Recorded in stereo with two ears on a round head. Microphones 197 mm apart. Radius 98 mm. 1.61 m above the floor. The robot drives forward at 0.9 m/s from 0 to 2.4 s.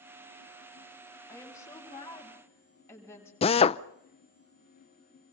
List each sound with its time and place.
1.3 s a woman speaking: 15° left (ahead or behind), 8 m
3.4 s a drill: 25° left (ahead or behind), 0.7 m